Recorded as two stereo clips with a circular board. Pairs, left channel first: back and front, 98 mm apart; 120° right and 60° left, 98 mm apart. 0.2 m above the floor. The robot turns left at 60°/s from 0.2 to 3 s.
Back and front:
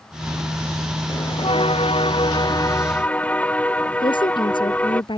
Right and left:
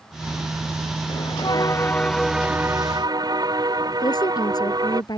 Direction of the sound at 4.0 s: 160° right.